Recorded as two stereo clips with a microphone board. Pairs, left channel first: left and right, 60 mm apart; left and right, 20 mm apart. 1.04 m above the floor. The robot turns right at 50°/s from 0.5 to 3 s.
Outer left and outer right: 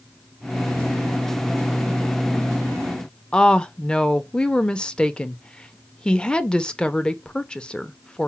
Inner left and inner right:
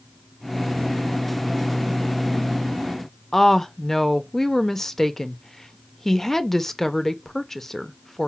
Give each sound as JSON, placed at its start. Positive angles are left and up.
{"t": 3.3, "sound": "a woman speaking", "side_deg": 15, "distance_m": 0.5}